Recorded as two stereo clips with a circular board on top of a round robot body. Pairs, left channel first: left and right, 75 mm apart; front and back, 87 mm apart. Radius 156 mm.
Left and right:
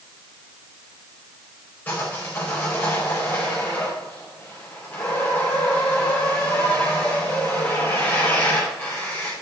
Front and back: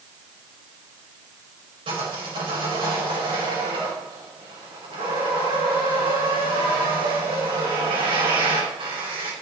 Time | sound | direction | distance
1.9 | sawing | 160° left | 5 m